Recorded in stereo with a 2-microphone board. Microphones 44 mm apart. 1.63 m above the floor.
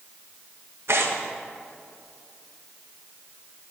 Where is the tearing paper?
75° right (ahead or behind), 1.8 m.